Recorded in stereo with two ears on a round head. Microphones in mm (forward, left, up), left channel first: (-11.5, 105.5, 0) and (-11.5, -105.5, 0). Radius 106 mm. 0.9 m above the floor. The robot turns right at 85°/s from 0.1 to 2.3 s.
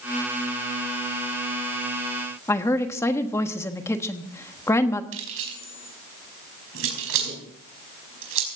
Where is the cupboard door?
No cupboard door in this recording.